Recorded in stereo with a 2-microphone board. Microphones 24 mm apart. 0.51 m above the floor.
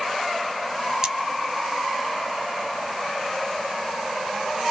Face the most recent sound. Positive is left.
turn(degrees=-25)  # may be behind; listen again after turning